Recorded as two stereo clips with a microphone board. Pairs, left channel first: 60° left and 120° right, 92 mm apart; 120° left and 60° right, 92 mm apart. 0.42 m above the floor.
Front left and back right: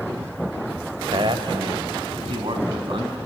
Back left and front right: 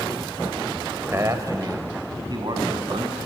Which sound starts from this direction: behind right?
A man speaking, at 1.1 s.